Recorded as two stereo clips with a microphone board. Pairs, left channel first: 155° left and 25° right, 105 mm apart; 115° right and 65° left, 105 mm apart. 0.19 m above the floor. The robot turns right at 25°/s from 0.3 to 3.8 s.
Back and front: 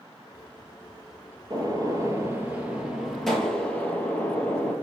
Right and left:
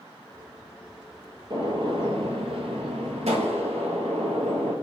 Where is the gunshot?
25° left, 1.8 m; by 4.7 s 85° left, 1.8 m.